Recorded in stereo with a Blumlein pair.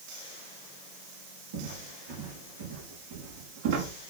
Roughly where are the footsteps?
Ahead right.